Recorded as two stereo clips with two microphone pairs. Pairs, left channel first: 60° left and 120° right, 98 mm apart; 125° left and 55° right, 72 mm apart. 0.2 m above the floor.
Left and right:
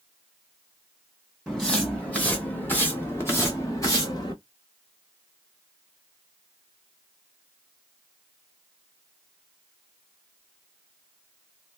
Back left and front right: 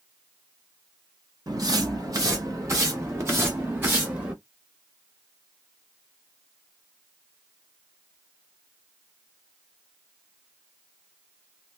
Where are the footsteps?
25° right, 3 m; by 4.3 s 10° left, 2.5 m.